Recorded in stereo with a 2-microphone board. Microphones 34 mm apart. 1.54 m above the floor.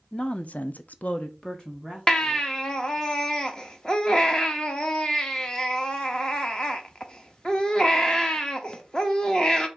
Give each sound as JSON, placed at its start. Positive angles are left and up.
{"t": 0.1, "sound": "a woman speaking", "side_deg": 25, "distance_m": 1.0}
{"t": 2.1, "sound": "a baby crying", "side_deg": 20, "distance_m": 0.9}